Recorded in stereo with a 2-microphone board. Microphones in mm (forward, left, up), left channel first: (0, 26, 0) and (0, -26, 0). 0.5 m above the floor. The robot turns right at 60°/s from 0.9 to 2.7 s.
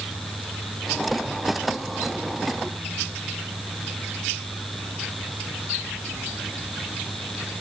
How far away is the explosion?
I don't hear an explosion.